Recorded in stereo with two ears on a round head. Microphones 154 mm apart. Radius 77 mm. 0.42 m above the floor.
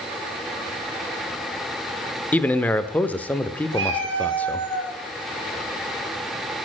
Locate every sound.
2.3 s a man speaking: 10° left (ahead or behind), 0.7 m
3.7 s a cat meowing: 75° right (ahead or behind), 4 m